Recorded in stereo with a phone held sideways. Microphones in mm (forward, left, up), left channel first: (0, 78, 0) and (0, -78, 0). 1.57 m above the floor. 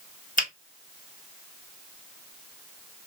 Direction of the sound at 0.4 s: 60° left (ahead or behind).